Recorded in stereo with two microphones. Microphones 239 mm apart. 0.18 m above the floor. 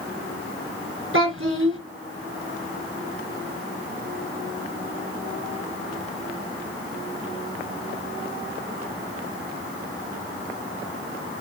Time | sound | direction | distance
1.1 | a child speaking | 60° right (ahead or behind) | 1.5 m